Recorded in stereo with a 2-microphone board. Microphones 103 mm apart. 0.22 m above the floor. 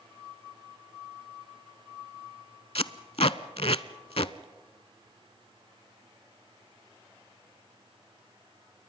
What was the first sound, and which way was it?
Tape being pulled, 75° left (ahead or behind).